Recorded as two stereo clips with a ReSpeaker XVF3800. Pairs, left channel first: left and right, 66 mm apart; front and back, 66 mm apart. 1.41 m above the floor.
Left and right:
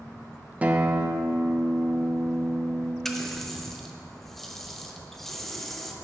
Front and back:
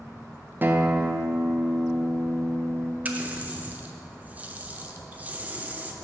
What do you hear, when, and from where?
0.6 s a guitar: 140° right, 0.5 m
3.0 s a running tap: 170° left, 0.6 m